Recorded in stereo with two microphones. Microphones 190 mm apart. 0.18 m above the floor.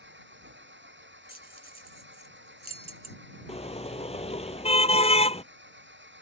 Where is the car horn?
30° left (ahead or behind).